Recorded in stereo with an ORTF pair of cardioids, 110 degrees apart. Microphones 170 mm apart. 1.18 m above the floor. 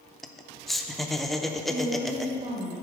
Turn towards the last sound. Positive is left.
turn(degrees=-45)